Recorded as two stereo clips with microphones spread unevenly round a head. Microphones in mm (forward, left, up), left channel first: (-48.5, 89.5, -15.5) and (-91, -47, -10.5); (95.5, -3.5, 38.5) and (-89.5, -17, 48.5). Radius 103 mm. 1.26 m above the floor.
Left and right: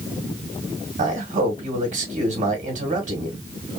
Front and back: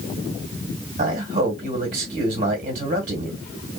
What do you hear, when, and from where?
1.0 s a man speaking: 135° right, 1.7 m